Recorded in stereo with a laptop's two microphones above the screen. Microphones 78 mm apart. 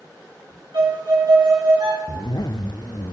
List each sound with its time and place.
0.7 s a violin: 75° right (ahead or behind), 3.5 m
2.1 s a zipper: 65° left (ahead or behind), 0.6 m